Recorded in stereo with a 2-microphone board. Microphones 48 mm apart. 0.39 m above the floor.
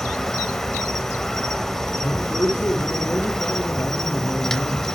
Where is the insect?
10° left (ahead or behind), 0.9 m.